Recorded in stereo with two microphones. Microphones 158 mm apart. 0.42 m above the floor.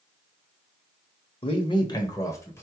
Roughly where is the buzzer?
No buzzer in this recording.